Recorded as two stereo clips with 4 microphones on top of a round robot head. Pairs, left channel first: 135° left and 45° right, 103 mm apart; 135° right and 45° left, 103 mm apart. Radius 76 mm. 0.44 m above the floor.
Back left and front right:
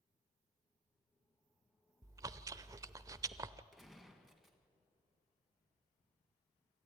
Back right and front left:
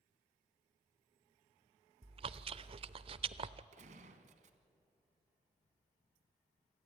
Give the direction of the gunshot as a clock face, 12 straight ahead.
11 o'clock.